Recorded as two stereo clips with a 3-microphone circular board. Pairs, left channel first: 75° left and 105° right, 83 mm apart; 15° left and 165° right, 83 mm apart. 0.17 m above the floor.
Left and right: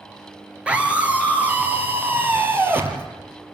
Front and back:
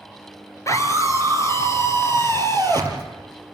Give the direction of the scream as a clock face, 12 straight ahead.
1 o'clock.